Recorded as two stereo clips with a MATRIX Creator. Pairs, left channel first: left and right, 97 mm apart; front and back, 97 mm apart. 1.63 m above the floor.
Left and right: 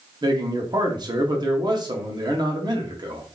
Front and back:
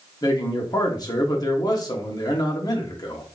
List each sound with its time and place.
0.2 s a man speaking: 45° right, 1.0 m